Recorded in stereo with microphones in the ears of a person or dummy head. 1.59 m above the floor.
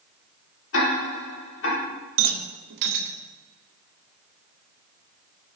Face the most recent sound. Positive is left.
turn(degrees=-60)  # may be behind; listen again after turning